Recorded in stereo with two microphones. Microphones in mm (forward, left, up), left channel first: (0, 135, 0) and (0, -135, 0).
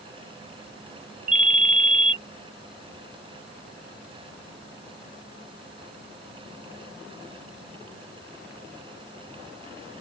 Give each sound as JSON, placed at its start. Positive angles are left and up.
{"t": 1.3, "sound": "a ringtone", "side_deg": -30}